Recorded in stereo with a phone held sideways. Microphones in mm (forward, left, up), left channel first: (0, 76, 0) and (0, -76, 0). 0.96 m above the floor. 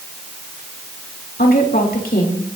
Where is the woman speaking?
75° left (ahead or behind), 3 m.